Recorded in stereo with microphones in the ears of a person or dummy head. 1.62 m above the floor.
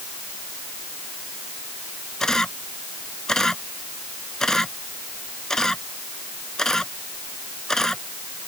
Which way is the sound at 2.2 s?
Centre (ahead or behind).